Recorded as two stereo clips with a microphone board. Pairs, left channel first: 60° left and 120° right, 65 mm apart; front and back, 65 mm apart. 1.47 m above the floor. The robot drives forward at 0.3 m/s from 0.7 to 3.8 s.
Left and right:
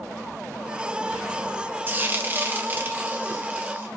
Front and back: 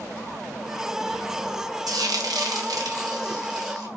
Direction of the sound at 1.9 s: Straight behind.